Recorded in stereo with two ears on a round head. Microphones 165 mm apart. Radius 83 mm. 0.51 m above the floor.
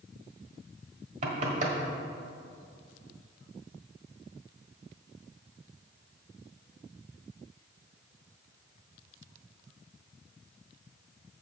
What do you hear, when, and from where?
1.2 s knocking: 40° right (ahead or behind), 1.3 m